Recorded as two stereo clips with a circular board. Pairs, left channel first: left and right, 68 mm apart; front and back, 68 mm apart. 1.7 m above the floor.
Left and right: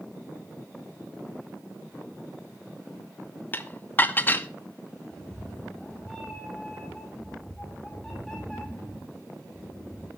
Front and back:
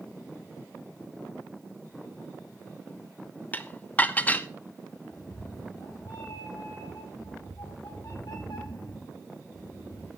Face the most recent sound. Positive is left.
turn(degrees=10)